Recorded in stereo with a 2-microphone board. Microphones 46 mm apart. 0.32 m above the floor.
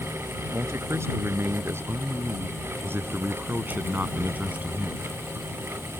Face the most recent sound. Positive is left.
turn(degrees=-25)  # may be behind; listen again after turning